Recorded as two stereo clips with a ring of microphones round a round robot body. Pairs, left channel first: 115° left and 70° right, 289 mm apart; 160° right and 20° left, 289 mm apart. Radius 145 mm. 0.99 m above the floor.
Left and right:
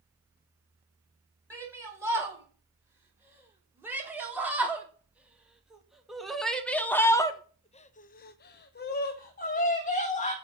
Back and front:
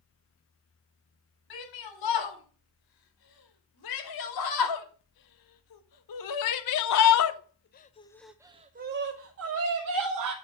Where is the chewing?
I don't hear chewing.